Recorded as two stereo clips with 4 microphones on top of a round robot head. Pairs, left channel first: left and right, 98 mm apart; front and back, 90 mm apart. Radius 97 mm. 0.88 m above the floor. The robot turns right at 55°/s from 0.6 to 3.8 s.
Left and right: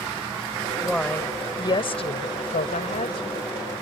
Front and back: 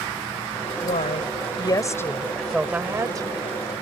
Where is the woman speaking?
Straight ahead; by 3.5 s 145° left.